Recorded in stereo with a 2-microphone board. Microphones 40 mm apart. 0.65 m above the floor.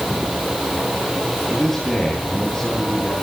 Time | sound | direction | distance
1.5 | a man speaking | 10° left (ahead or behind) | 7.5 m